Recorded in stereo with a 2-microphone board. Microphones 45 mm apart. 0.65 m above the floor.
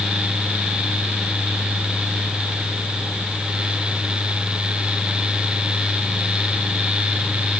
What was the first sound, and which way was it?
Only background noise.